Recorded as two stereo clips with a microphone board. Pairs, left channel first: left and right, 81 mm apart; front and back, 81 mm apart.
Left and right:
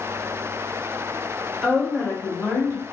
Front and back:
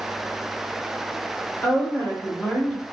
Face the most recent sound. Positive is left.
turn(degrees=75)